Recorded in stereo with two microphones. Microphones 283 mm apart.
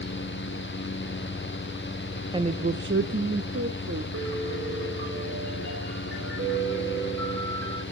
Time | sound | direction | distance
2.3 | a woman speaking | 15° right (ahead or behind) | 0.5 m
4.1 | a piano | 45° right (ahead or behind) | 3.5 m